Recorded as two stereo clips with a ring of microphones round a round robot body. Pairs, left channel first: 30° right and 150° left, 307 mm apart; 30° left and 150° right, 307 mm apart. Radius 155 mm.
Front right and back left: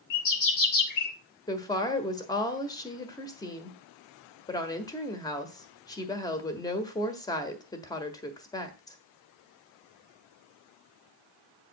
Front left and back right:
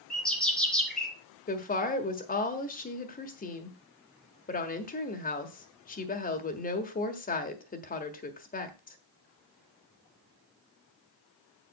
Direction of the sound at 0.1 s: 60° right.